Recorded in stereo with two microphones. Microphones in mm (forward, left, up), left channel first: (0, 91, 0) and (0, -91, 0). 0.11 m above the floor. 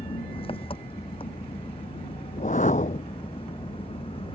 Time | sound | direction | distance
0.0 | an engine running | 30° left (ahead or behind) | ?
2.3 | a whoosh | 45° left (ahead or behind) | ?